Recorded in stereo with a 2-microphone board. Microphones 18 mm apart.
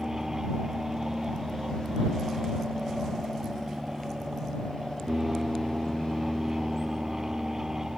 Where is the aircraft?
30° right (ahead or behind).